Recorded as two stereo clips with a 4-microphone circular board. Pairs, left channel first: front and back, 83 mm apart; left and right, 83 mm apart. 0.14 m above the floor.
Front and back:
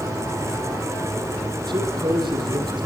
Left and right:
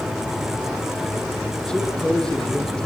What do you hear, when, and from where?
1.7 s a man speaking: 170° left, 6.5 m